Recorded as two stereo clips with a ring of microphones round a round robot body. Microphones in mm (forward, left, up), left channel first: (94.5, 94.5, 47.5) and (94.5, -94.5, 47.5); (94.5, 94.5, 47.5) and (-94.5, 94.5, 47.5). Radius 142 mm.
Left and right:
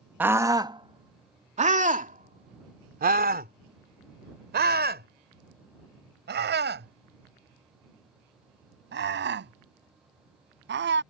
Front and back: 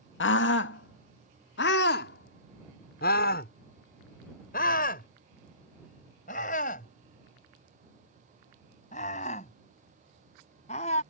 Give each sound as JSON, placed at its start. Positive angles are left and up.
{"t": 0.2, "sound": "a scream", "azimuth_deg": -10}